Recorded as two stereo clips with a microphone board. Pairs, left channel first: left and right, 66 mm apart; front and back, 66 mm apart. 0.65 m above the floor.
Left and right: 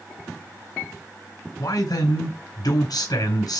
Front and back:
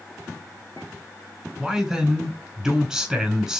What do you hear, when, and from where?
1.6 s a man speaking: 95° left, 4.5 m